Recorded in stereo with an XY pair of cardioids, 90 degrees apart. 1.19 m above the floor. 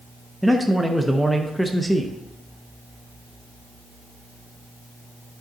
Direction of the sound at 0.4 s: Straight ahead.